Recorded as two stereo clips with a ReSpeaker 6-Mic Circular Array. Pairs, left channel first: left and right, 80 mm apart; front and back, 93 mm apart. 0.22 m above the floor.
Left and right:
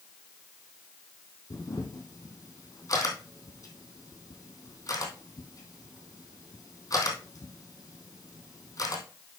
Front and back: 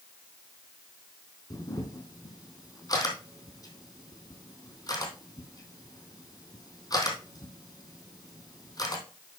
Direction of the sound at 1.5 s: 45° left.